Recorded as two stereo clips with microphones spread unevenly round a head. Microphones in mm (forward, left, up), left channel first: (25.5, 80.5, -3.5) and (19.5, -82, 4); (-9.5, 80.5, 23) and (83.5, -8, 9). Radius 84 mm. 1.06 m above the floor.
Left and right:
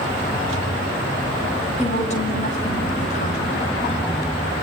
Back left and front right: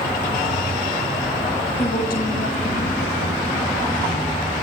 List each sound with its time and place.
1.8 s a woman speaking: 140° left, 7 m